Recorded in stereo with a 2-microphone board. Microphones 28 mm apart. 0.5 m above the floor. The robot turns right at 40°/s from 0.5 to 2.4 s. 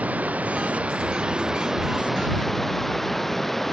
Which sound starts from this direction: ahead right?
Running water, at 0.0 s.